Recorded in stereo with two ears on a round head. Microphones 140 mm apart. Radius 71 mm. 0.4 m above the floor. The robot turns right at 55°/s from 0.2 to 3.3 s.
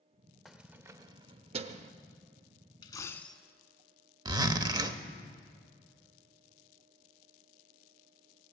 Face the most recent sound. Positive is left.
turn(degrees=-25)  # may be behind; listen again after turning